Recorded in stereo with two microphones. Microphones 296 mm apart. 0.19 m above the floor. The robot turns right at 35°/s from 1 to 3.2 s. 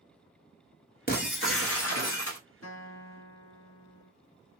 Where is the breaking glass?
35° left, 0.7 m; by 2.4 s 80° left, 0.7 m.